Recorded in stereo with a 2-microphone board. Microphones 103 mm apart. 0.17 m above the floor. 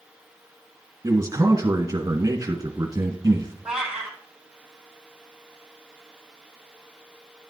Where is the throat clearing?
I don't hear throat clearing.